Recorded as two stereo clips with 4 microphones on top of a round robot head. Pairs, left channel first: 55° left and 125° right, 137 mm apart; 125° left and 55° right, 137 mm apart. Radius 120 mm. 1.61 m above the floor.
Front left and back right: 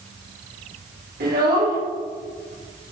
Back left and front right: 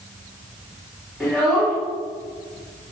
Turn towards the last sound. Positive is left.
turn(degrees=-145)